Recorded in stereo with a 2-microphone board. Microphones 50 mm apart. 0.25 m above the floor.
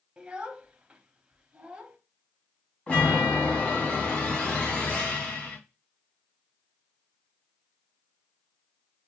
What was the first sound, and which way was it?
A child speaking, 20° right (ahead or behind).